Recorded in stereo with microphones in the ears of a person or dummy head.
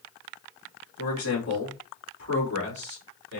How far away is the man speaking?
About 2 m.